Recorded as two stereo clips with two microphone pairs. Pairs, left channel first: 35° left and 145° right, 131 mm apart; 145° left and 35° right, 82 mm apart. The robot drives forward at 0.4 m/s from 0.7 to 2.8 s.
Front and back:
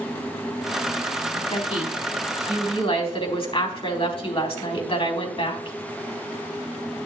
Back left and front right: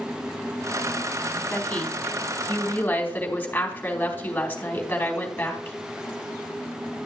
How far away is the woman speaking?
About 4 m.